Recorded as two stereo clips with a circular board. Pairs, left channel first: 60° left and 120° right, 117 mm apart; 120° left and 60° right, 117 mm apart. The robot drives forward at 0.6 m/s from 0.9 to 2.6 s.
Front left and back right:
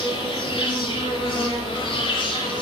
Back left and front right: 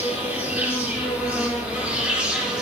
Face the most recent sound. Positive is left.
turn(degrees=20)